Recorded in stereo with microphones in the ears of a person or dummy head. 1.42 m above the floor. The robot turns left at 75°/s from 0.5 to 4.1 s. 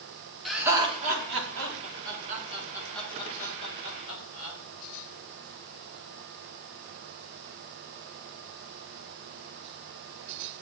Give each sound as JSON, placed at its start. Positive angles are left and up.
{"t": 0.5, "sound": "laughter", "side_deg": 0, "distance_m": 3.5}